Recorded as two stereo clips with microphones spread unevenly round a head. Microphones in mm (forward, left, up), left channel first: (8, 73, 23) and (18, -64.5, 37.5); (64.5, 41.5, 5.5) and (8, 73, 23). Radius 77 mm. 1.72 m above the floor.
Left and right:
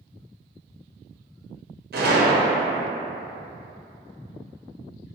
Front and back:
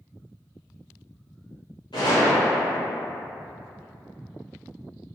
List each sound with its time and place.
1.9 s a gunshot: 85° right, 0.7 m